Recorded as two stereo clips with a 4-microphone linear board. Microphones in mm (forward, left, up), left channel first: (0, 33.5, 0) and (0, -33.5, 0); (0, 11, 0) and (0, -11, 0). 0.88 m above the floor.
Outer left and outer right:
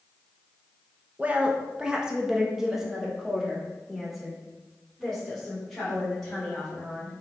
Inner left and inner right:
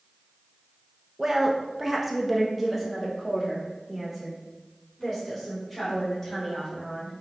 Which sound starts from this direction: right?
A woman speaking, at 1.2 s.